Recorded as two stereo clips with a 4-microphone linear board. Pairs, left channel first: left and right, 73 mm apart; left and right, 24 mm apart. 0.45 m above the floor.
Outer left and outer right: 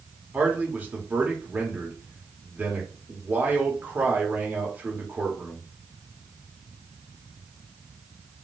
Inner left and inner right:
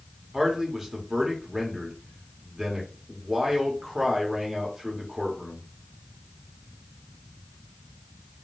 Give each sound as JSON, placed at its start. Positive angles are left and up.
{"t": 0.3, "sound": "a man speaking", "side_deg": -25, "distance_m": 1.0}